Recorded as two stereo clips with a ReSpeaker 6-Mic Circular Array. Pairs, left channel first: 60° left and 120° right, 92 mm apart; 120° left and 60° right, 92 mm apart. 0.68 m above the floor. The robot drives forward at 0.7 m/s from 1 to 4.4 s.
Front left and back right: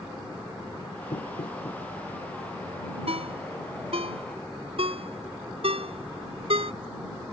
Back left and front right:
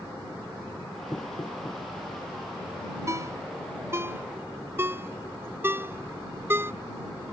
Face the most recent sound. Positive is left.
turn(degrees=-125)